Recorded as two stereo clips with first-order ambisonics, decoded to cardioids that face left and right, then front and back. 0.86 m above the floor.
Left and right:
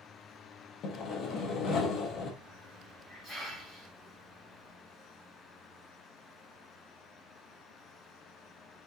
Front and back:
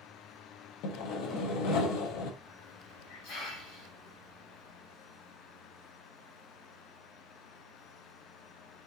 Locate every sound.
0.8 s sawing: 35° left, 0.6 m
2.4 s a hiss: 5° left, 1.8 m